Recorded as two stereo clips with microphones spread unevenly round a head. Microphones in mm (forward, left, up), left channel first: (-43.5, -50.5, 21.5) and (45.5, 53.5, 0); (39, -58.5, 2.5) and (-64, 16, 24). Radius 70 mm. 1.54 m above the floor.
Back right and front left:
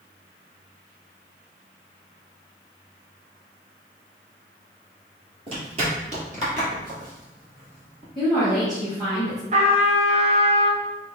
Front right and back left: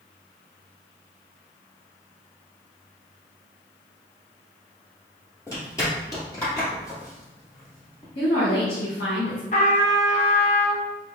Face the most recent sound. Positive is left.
turn(degrees=5)